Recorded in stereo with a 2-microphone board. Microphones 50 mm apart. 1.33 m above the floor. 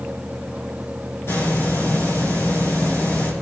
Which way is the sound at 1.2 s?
55° left (ahead or behind).